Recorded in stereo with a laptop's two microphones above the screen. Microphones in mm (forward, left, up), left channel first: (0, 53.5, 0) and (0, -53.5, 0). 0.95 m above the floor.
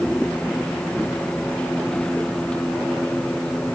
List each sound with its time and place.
0.0 s a machine running: 10° left (ahead or behind)